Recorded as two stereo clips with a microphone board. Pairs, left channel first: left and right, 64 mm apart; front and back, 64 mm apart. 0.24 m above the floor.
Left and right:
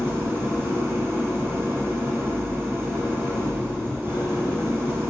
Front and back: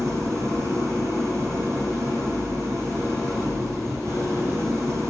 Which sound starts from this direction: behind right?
An engine running, at 0.0 s.